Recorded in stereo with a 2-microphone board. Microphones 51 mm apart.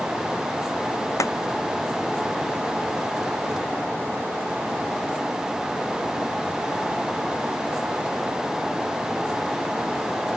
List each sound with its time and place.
1.2 s a clap: 85° left